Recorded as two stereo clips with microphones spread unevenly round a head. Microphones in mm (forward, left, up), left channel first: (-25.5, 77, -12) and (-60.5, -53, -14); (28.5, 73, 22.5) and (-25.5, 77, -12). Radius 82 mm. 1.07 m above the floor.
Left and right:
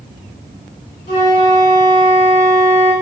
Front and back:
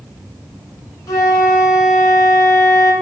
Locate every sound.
1.1 s a flute: 25° left, 1.6 m